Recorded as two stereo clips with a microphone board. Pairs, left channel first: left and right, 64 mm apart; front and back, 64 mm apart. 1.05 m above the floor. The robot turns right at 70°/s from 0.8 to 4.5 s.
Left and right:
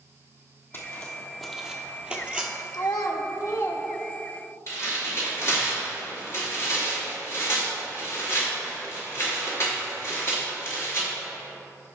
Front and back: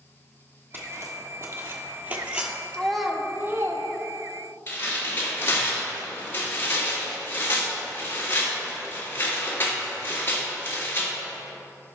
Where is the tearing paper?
50° left, 3 m.